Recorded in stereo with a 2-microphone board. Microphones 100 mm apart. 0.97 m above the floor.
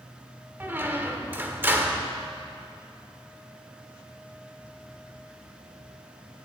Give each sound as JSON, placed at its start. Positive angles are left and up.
{"t": 0.6, "sound": "a squeak", "side_deg": -20, "distance_m": 1.0}